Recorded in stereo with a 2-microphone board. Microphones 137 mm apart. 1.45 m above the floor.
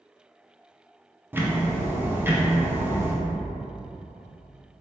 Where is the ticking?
15° right (ahead or behind), 0.7 m.